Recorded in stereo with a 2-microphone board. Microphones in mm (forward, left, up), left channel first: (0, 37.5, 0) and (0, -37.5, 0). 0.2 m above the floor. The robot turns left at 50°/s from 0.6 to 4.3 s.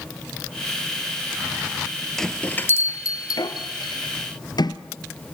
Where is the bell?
5° left (ahead or behind), 1.3 m; by 4.8 s 65° left (ahead or behind), 1.3 m.